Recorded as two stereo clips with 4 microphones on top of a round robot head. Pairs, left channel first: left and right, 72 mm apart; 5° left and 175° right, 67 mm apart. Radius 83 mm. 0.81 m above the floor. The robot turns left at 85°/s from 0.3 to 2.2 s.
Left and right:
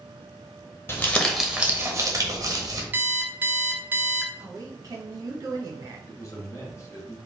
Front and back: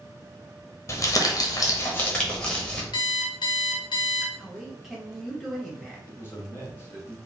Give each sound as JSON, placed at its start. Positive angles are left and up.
{"t": 0.9, "sound": "crumpling", "azimuth_deg": 35, "distance_m": 1.1}
{"t": 2.9, "sound": "an alarm clock", "azimuth_deg": -30, "distance_m": 0.5}
{"t": 4.4, "sound": "a man speaking", "azimuth_deg": -90, "distance_m": 1.6}
{"t": 6.1, "sound": "a man speaking", "azimuth_deg": 55, "distance_m": 1.7}